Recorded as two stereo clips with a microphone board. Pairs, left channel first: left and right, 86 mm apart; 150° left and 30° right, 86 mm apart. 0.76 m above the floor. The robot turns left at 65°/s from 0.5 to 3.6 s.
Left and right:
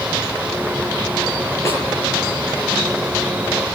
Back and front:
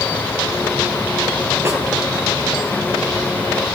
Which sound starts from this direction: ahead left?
A snare drum, at 1.6 s.